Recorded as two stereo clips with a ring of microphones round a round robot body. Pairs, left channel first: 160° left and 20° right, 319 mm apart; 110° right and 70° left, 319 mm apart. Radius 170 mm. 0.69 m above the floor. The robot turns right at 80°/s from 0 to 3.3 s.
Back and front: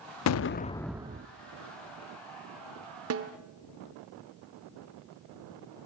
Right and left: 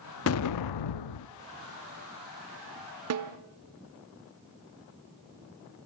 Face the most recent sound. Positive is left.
turn(degrees=40)